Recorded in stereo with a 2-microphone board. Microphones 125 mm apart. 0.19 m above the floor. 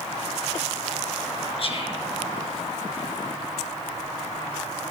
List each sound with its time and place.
1.6 s whispering: 50° left (ahead or behind), 2.5 m